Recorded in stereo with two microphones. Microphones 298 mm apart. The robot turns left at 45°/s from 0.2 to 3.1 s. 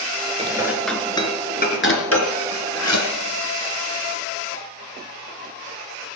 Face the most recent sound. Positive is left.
turn(degrees=65)  # may be behind; listen again after turning